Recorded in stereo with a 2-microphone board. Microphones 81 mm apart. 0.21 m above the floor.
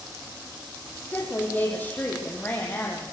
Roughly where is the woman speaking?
Left.